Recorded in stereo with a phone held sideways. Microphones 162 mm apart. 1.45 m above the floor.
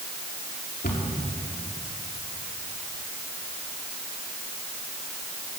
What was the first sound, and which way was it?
A cupboard door, 85° left.